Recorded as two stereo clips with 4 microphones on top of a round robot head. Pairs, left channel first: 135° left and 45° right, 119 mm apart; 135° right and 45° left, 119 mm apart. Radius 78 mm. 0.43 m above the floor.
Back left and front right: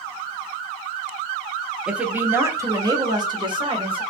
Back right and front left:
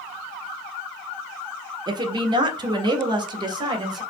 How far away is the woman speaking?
About 1.1 m.